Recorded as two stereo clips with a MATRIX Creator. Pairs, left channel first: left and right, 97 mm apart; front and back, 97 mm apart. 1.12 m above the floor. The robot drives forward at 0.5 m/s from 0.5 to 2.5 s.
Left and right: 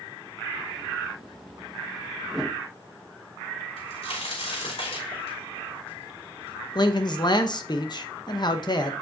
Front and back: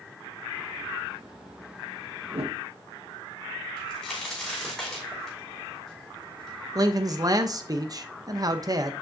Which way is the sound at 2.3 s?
175° right.